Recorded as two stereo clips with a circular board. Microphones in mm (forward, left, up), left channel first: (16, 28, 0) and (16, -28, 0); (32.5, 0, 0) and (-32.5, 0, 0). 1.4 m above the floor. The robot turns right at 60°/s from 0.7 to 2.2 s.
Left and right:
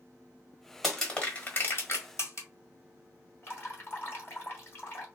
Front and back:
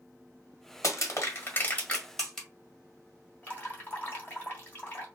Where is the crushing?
Straight ahead, 1.7 m; by 2.5 s 80° left, 1.7 m.